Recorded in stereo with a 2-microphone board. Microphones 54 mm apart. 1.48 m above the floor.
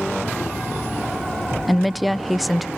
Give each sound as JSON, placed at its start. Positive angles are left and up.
{"t": 1.7, "sound": "a woman speaking", "side_deg": 0, "distance_m": 0.5}